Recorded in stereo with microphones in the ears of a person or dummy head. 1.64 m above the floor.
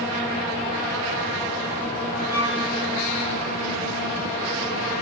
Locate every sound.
2.3 s a violin: 15° left (ahead or behind), 1.8 m